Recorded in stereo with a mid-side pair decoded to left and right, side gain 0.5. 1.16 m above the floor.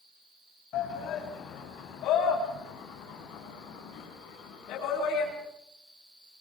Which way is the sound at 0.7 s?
70° left.